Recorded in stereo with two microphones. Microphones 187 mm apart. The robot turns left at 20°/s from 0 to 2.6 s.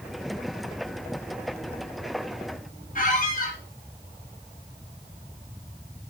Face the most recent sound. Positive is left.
turn(degrees=45)  # may be behind; listen again after turning